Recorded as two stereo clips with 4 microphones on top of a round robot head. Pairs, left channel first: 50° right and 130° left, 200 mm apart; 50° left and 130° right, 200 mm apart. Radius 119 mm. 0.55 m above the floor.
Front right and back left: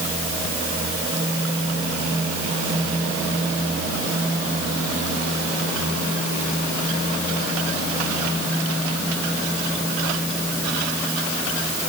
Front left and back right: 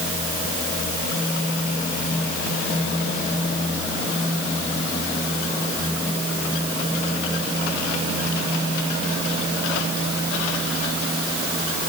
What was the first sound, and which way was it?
Only background noise.